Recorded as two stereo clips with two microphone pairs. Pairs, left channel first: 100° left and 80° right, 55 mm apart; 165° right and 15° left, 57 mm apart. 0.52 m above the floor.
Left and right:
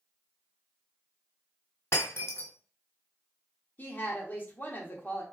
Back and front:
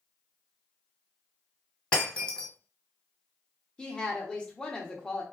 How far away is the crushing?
I don't hear crushing.